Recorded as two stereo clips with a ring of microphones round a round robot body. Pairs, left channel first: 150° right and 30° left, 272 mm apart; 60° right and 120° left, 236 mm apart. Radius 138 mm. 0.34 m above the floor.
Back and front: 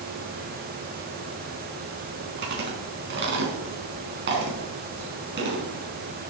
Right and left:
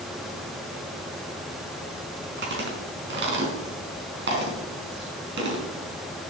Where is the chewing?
80° left, 4.5 m.